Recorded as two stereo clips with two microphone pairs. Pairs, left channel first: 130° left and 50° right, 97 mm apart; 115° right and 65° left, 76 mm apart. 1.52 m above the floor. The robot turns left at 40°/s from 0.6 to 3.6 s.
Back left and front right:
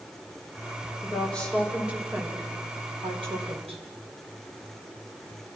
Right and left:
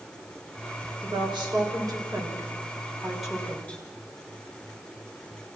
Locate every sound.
1.0 s a woman speaking: 65° left, 5.5 m; by 3.8 s 40° right, 5.5 m